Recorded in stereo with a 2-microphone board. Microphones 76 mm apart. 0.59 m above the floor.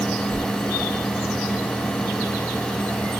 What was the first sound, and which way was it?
Only background noise.